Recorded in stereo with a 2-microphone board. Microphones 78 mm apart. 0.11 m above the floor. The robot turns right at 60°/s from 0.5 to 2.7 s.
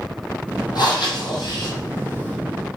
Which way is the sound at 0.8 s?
65° left.